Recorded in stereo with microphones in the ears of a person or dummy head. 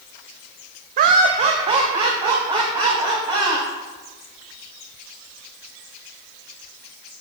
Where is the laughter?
45° right (ahead or behind), 0.5 m; by 3.6 s 20° right (ahead or behind), 2.5 m.